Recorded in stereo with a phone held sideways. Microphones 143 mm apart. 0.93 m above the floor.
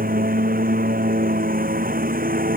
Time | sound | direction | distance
0.0 | a lawn mower | 85° right | ?